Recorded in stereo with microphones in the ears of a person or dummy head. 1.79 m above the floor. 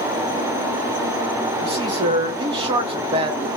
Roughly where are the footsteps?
No footsteps in this recording.